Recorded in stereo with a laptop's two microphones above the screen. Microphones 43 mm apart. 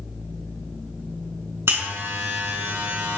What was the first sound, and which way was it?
A buzzer, 80° right.